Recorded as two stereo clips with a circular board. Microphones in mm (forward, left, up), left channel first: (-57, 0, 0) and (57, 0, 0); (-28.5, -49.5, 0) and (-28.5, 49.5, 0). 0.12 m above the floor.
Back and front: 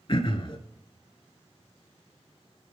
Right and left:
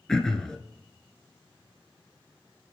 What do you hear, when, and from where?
0.1 s throat clearing: 170° right, 0.5 m